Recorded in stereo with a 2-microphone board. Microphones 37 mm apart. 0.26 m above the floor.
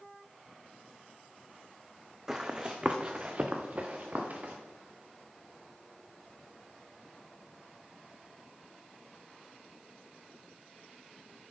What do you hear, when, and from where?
2.3 s running footsteps: 15° right (ahead or behind), 0.9 m; by 4.5 s 45° right (ahead or behind), 1.9 m